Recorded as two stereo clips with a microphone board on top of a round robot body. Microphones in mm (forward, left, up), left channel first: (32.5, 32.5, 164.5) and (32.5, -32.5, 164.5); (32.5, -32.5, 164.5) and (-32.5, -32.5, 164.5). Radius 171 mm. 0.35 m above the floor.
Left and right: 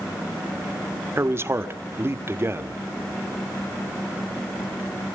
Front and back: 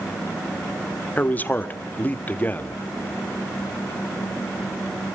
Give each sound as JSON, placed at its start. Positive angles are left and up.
{"t": 1.2, "sound": "a man speaking", "azimuth_deg": -55, "distance_m": 2.0}